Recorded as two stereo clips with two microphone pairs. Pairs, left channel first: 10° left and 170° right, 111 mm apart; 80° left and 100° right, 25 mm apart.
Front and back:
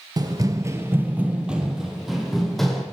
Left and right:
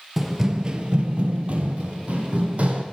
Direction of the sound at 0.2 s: 175° left.